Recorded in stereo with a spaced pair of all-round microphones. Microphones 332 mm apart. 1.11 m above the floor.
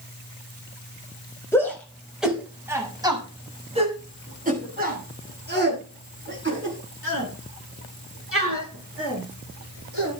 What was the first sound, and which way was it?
A shout, 5° left (ahead or behind).